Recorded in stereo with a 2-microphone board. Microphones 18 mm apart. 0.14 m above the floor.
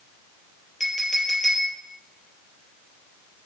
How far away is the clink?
About 2.0 m.